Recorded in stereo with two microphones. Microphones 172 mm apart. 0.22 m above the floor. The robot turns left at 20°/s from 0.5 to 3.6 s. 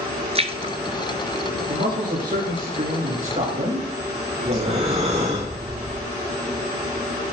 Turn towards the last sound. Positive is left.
turn(degrees=-40)  # may be behind; listen again after turning